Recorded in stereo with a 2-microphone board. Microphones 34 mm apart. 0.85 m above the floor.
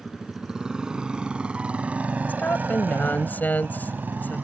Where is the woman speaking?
60° left (ahead or behind).